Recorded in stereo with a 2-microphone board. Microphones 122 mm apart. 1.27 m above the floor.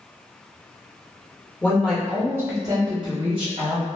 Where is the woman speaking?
15° left (ahead or behind), 0.9 m; by 3.9 s 65° right (ahead or behind), 1.1 m.